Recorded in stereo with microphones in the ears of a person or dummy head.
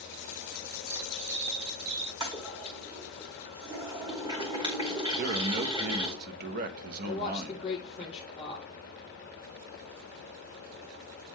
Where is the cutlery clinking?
75° right (ahead or behind), 2.0 m.